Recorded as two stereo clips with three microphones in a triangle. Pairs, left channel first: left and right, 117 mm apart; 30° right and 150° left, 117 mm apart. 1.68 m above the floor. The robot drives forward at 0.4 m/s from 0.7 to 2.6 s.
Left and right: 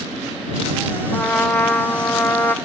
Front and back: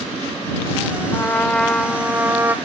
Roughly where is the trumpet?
Ahead.